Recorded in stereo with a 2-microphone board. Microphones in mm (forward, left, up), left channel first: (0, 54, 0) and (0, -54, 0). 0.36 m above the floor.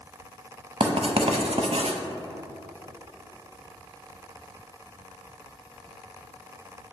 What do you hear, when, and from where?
0.8 s writing: 75° right (ahead or behind), 0.6 m